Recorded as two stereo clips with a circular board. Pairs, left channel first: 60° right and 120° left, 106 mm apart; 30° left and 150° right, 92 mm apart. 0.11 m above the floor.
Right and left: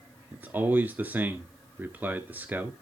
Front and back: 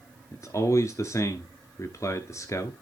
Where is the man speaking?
55° left, 1.4 m.